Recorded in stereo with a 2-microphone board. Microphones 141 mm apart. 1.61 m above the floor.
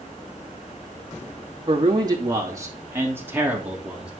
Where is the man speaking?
35° right (ahead or behind), 2.5 m; by 4.1 s 5° right (ahead or behind), 3 m.